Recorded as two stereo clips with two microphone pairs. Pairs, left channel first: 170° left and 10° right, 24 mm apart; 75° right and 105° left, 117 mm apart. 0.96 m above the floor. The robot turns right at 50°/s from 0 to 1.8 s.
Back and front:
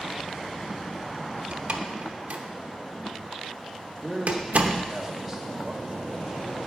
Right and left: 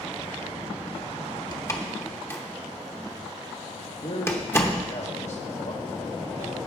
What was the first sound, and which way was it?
A door slam, 25° right.